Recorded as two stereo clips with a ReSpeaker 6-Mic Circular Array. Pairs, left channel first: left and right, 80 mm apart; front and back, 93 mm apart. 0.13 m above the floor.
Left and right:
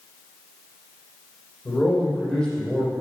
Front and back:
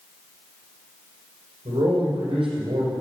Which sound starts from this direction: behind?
A man speaking, at 1.6 s.